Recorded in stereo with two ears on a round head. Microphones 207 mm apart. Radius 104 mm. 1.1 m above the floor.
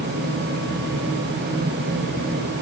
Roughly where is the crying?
I don't hear crying.